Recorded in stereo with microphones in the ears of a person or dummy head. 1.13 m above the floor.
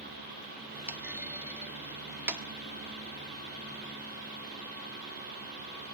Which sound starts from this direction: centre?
A clunk, at 0.9 s.